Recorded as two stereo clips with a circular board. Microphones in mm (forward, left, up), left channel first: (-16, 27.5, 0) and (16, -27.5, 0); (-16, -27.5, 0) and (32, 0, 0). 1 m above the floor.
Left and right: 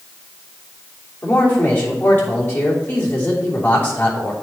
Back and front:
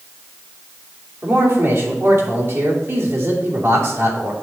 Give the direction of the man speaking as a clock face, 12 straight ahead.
10 o'clock.